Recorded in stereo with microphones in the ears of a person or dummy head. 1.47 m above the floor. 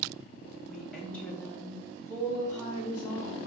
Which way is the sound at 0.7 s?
Centre (ahead or behind).